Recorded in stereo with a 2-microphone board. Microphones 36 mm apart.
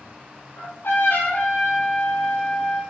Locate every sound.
0.6 s a trumpet: 85° left, 4.5 m